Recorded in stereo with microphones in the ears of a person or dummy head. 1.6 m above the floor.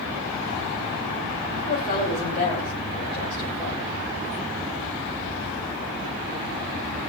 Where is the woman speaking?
45° left (ahead or behind), 8.5 m; by 3.9 s 25° left (ahead or behind), 9 m.